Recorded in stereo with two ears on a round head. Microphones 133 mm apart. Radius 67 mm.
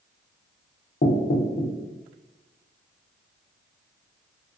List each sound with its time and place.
1.0 s knocking: 50° left (ahead or behind), 0.6 m